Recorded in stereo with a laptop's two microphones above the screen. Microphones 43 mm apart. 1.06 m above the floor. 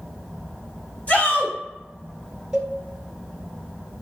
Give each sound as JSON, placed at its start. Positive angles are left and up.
{"t": 1.1, "sound": "a shout", "side_deg": 40, "distance_m": 1.1}
{"t": 2.5, "sound": "a cowbell", "side_deg": -20, "distance_m": 0.8}